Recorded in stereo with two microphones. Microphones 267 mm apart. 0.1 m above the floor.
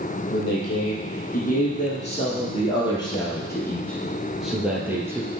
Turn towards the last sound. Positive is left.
turn(degrees=-10)  # may be behind; listen again after turning